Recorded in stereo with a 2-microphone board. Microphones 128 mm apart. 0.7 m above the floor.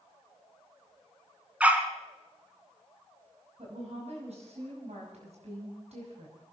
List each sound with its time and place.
1.6 s a dog barking: 10° right (ahead or behind), 1.7 m
3.6 s a woman speaking: 60° right (ahead or behind), 5.5 m